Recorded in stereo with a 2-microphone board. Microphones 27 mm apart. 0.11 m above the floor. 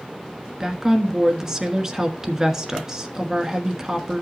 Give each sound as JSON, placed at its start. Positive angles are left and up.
{"t": 0.6, "sound": "a woman speaking", "side_deg": -20, "distance_m": 1.3}